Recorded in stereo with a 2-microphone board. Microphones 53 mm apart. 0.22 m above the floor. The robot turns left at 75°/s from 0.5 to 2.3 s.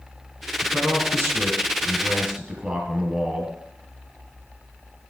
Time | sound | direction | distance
0.6 | a man speaking | 25° right | 3 m